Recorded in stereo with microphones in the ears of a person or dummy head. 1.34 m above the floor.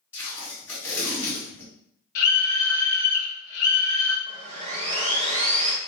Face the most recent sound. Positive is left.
turn(degrees=-30)  # may be behind; listen again after turning